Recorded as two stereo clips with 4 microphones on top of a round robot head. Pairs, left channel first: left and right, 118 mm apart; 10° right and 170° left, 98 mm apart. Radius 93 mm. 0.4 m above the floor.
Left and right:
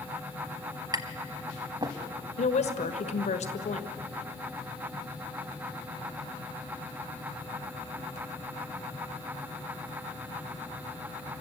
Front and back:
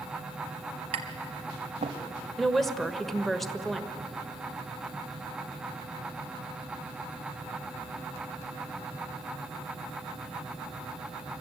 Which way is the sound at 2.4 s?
80° left.